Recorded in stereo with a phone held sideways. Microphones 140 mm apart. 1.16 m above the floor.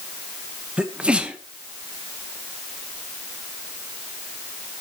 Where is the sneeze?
5° right (ahead or behind), 1.3 m.